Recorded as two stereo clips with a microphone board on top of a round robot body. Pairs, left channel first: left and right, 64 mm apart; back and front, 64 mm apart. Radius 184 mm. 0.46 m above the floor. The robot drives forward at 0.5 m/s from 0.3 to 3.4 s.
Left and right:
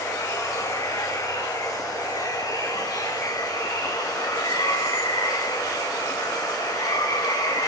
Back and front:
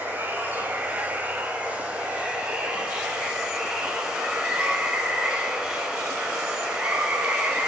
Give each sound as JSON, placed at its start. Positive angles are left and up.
{"t": 0.0, "sound": "running water", "azimuth_deg": 65, "distance_m": 5.5}